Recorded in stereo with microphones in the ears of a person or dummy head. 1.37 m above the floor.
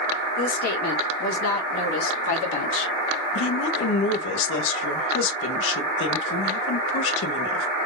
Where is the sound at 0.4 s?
65° left (ahead or behind), 2 m; by 2.9 s 75° left (ahead or behind), 2.5 m.